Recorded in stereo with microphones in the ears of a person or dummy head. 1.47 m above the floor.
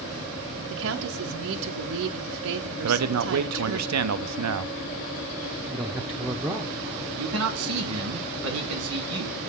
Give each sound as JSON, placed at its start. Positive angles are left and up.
{"t": 0.7, "sound": "a woman speaking", "side_deg": -75, "distance_m": 0.7}
{"t": 2.8, "sound": "a man speaking", "side_deg": -80, "distance_m": 0.6}
{"t": 5.7, "sound": "a man speaking", "side_deg": -10, "distance_m": 0.9}
{"t": 7.2, "sound": "a man speaking", "side_deg": -75, "distance_m": 1.6}